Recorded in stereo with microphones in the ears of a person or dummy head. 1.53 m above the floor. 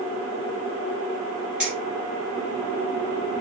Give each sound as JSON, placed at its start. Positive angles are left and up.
{"t": 1.6, "sound": "keys jangling", "side_deg": -10, "distance_m": 1.6}